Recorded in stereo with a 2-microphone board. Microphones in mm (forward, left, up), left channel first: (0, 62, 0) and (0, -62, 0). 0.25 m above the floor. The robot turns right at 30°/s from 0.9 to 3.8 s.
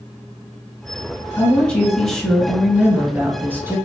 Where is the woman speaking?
10° left (ahead or behind), 1.6 m; by 3.8 s 20° right (ahead or behind), 1.6 m.